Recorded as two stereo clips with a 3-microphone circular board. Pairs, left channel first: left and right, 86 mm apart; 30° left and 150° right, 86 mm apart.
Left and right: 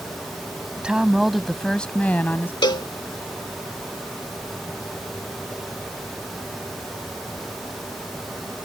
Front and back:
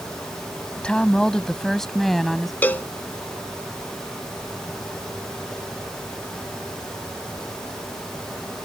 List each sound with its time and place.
0.8 s a woman speaking: 35° right; by 2.5 s 120° left
2.6 s a cowbell: 90° left